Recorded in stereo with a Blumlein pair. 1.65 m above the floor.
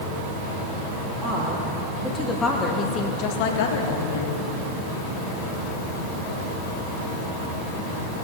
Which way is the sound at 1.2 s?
10° right.